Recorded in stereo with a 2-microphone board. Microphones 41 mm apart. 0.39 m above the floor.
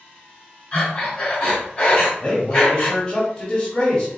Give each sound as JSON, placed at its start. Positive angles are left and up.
{"t": 0.7, "sound": "breathing", "side_deg": 25, "distance_m": 2.5}
{"t": 2.2, "sound": "a man speaking", "side_deg": 20, "distance_m": 1.5}